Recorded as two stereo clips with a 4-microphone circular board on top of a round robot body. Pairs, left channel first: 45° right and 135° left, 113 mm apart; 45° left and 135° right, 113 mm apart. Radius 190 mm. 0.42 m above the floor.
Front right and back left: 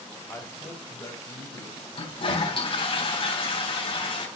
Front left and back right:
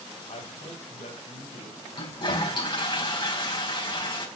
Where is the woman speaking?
20° left, 3 m; by 1.8 s 10° left, 3.5 m.